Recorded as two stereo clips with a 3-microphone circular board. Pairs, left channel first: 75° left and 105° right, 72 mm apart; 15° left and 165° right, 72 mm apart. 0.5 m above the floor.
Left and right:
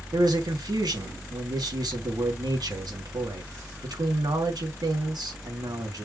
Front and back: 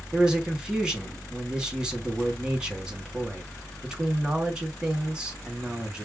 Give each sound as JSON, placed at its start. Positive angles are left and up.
{"t": 0.1, "sound": "a man speaking", "azimuth_deg": -85, "distance_m": 3.5}